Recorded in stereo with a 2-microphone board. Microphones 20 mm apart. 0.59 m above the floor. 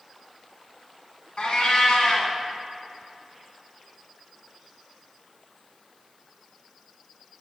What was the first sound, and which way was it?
A cat meowing, 60° left (ahead or behind).